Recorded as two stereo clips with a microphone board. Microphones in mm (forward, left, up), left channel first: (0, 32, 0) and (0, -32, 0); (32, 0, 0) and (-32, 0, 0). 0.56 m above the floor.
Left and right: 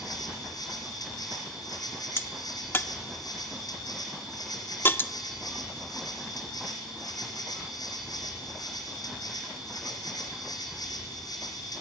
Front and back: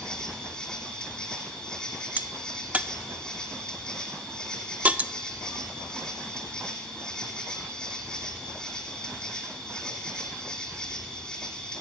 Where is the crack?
125° left, 0.6 m.